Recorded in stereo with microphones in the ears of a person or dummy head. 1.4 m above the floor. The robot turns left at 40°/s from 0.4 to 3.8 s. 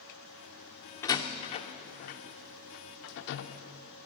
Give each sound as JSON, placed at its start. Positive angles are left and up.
{"t": 1.0, "sound": "a door slam", "side_deg": 20, "distance_m": 0.7}